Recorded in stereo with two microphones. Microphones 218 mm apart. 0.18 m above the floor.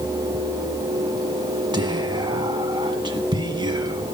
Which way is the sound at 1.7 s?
20° right (ahead or behind).